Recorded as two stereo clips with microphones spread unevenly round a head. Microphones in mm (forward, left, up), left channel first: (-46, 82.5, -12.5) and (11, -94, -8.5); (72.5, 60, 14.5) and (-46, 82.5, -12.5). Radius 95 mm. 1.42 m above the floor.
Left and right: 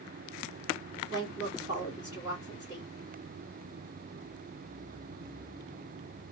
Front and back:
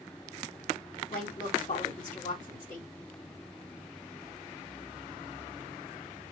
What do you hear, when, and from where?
1.1 s a woman speaking: straight ahead, 2.5 m